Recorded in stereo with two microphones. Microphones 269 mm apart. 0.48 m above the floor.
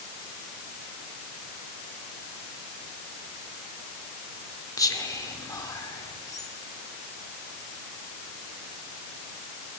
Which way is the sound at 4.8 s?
15° left (ahead or behind).